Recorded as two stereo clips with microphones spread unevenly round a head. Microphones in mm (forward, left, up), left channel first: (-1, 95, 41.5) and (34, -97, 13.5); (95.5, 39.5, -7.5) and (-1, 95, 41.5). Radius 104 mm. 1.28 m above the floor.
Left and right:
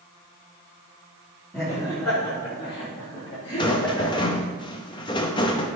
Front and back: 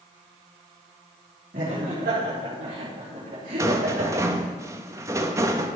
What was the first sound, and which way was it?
Laughter, 175° right.